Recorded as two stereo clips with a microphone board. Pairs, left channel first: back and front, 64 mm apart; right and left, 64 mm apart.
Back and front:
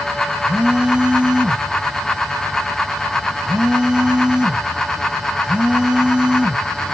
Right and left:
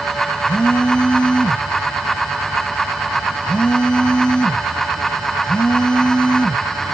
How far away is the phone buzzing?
About 1.4 m.